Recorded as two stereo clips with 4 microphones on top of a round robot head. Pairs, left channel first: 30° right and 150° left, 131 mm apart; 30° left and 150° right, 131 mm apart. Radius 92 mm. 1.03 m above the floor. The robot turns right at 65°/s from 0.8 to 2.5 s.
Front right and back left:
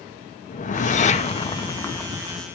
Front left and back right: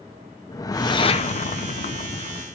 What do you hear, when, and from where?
0.5 s a whoosh: 25° right, 1.9 m; by 2.4 s 80° left, 1.9 m